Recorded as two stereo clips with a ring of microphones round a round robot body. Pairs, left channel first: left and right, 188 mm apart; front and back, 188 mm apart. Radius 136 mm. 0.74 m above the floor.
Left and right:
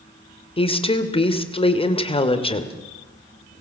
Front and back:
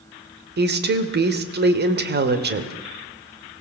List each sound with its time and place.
0.6 s a woman speaking: 150° left, 2.5 m